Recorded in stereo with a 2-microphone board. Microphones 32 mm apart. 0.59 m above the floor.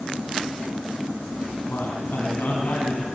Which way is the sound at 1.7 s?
80° left.